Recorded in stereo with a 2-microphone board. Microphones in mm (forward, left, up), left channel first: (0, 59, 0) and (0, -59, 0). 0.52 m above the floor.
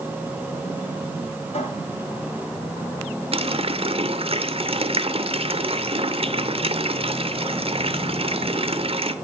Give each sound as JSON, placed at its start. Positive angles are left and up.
{"t": 1.5, "sound": "a cupboard door", "side_deg": 60, "distance_m": 7.5}
{"t": 3.3, "sound": "a running tap", "side_deg": -55, "distance_m": 0.9}